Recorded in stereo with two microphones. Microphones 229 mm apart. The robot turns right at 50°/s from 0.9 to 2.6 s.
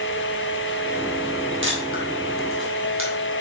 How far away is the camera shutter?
About 2 m.